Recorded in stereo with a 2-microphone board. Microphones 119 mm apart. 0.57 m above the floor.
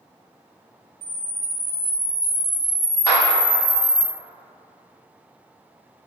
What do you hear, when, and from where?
1.0 s a camera shutter: 15° left (ahead or behind), 0.7 m
3.1 s a clap: 25° left (ahead or behind), 1.2 m